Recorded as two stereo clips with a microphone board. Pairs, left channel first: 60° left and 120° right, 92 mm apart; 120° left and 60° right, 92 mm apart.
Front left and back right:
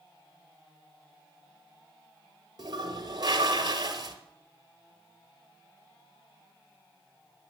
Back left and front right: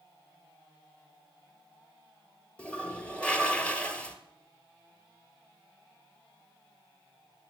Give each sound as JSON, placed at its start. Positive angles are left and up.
{"t": 2.6, "sound": "a toilet flushing", "azimuth_deg": -165, "distance_m": 1.4}